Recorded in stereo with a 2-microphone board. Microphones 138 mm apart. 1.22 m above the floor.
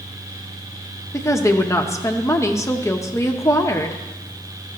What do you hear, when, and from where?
1.1 s a woman speaking: 20° left (ahead or behind), 0.7 m